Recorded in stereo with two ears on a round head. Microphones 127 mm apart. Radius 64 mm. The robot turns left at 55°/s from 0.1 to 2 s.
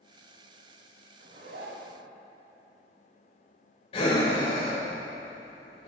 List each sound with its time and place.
1.2 s a zipper: 65° right, 1.1 m; by 2.0 s 105° right, 1.1 m
3.9 s breathing: 45° left (ahead or behind), 1.7 m